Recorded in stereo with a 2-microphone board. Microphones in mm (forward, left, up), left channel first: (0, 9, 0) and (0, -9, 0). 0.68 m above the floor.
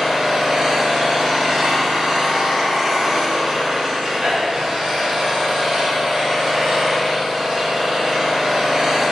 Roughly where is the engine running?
Right.